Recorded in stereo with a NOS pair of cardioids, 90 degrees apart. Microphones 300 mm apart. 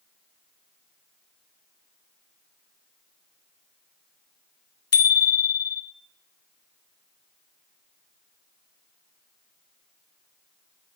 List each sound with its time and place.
4.9 s a bicycle bell: 55° left, 2 m